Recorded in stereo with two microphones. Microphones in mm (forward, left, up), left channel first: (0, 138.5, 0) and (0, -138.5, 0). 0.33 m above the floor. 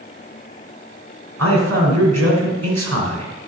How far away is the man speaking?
About 3 m.